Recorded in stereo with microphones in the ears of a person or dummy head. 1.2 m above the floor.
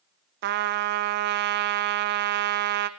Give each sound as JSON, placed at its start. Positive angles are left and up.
{"t": 0.4, "sound": "a trumpet", "side_deg": -60, "distance_m": 0.5}